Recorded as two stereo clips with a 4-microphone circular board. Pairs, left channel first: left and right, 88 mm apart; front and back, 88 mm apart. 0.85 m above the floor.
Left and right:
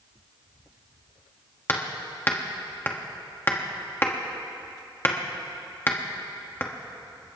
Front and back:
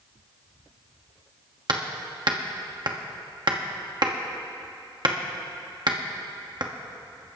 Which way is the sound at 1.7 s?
155° left.